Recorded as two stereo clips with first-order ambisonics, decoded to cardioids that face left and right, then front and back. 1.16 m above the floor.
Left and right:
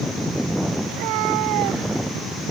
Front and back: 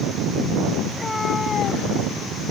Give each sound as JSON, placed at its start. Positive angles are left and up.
{"t": 0.9, "sound": "a cat meowing", "azimuth_deg": -90}